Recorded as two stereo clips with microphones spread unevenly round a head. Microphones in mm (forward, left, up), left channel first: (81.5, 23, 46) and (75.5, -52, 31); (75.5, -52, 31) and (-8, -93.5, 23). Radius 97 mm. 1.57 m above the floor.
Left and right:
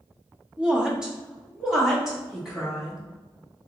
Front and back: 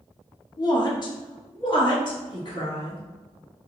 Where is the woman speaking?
10° right, 0.7 m.